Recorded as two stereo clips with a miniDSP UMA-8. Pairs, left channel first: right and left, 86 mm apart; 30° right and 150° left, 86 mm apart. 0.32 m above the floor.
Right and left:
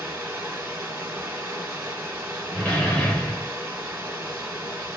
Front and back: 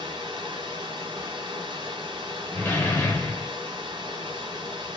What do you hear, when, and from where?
0.0 s running water: 160° left, 1.3 m
2.5 s a door slam: 35° right, 0.8 m